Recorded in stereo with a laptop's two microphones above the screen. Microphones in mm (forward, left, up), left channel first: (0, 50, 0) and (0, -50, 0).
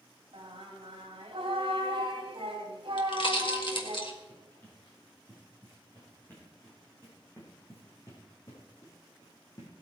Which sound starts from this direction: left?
A pop, at 3.0 s.